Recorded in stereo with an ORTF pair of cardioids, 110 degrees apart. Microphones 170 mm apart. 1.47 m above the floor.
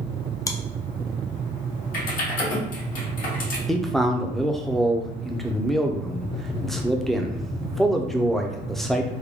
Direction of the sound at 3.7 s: Straight ahead.